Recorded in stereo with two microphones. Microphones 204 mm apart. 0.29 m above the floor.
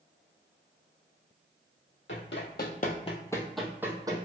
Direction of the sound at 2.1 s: 70° left (ahead or behind).